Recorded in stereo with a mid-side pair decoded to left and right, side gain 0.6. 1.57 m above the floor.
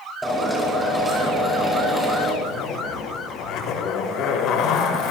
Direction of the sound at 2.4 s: 65° left.